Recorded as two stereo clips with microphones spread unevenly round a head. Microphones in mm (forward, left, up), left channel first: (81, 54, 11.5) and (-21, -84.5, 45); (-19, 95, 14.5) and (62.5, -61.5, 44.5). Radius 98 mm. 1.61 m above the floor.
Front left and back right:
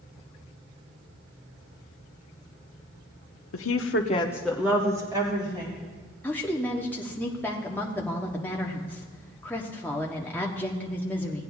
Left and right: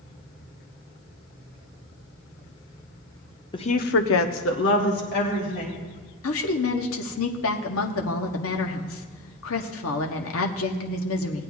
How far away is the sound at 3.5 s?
About 0.9 m.